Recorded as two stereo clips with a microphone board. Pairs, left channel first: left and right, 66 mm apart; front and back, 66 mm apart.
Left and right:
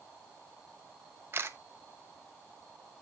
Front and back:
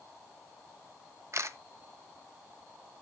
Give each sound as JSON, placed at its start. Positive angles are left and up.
{"t": 1.3, "sound": "a camera shutter", "azimuth_deg": -135, "distance_m": 0.9}